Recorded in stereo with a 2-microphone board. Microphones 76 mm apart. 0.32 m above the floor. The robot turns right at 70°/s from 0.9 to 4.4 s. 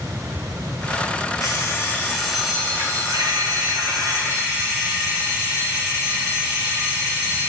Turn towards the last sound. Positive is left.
turn(degrees=-35)